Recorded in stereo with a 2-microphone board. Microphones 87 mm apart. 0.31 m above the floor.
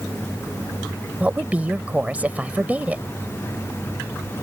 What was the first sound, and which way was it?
A woman speaking, 15° right (ahead or behind).